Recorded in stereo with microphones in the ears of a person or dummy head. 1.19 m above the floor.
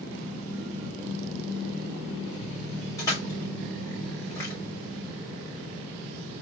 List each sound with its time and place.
3.0 s crushing: 10° left (ahead or behind), 1.7 m